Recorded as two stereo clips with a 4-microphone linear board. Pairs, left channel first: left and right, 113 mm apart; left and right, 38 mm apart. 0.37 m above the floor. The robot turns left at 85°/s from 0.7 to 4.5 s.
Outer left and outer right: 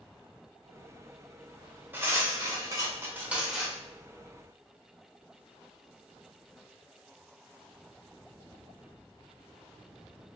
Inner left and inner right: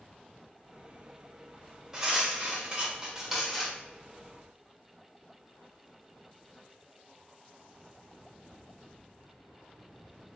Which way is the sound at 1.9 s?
40° right.